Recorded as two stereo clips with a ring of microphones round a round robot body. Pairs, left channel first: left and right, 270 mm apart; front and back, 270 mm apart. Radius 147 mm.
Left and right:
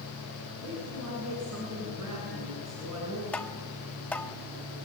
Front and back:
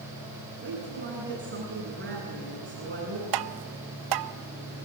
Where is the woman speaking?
130° right, 9 m.